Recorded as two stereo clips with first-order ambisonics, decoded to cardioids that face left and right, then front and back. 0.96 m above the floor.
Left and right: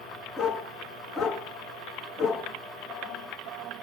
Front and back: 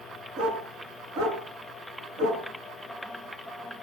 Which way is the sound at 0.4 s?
155° left.